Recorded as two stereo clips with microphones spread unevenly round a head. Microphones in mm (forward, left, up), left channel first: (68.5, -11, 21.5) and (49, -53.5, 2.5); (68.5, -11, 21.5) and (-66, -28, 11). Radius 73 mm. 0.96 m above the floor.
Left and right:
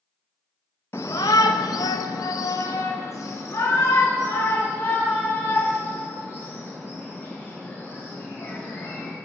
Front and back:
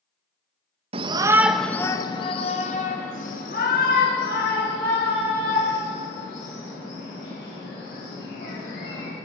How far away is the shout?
About 0.6 m.